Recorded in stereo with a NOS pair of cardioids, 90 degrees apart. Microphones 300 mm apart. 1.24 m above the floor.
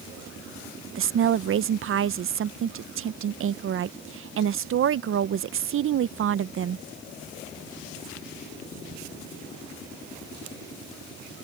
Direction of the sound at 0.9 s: 45° right.